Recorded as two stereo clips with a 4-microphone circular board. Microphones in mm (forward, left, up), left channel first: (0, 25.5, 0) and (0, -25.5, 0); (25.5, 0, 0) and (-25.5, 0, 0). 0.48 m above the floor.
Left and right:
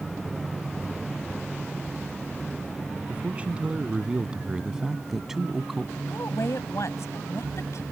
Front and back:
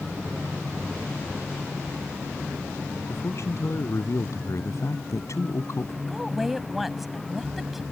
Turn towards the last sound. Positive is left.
turn(degrees=90)